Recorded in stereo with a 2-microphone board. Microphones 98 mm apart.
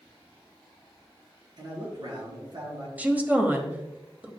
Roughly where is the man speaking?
Right.